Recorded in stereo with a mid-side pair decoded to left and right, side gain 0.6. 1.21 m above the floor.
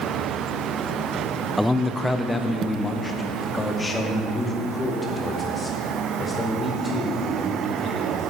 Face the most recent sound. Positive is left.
turn(degrees=20)